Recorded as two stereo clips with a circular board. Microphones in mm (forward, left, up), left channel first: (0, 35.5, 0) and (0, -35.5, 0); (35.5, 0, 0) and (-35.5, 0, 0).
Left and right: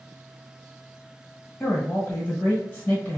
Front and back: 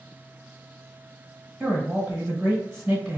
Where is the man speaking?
125° left, 1.2 m.